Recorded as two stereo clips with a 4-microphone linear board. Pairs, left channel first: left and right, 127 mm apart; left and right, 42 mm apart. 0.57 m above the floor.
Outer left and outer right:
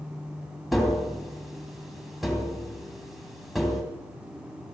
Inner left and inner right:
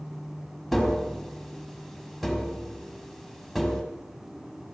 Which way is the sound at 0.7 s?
Centre (ahead or behind).